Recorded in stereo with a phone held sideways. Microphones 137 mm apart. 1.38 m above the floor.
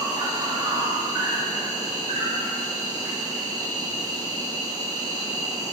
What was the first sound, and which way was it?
An insect, 25° right (ahead or behind).